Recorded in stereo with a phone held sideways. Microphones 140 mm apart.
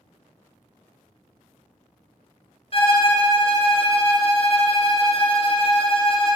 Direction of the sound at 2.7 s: 45° left (ahead or behind).